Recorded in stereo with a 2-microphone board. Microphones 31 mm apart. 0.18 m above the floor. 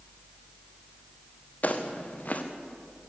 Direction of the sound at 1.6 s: 50° left (ahead or behind).